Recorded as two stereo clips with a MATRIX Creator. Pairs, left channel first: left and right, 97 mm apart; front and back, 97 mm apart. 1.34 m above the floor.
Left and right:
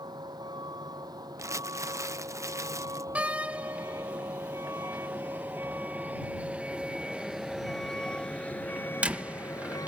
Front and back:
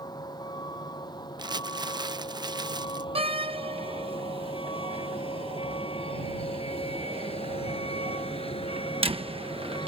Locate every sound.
0.0 s a vehicle: 45° right; by 9.9 s 35° left
1.4 s crumpling: 145° right
3.1 s a door slam: 165° right